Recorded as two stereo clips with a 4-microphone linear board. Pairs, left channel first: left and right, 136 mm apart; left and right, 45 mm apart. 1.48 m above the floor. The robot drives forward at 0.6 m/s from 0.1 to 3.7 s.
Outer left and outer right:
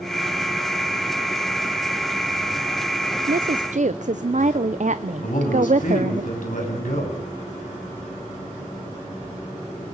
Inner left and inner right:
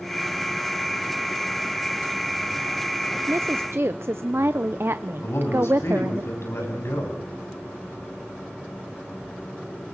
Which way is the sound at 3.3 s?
85° right.